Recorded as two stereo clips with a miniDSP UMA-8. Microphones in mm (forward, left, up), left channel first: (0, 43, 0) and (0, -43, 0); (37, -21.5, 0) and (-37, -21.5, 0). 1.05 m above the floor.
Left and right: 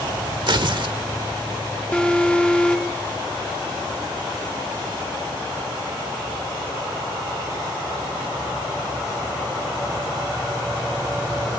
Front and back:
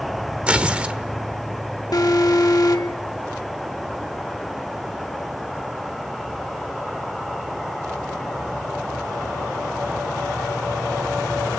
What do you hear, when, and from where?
0.5 s tearing paper: 105° right, 1.3 m
1.9 s an alarm: 15° left, 1.3 m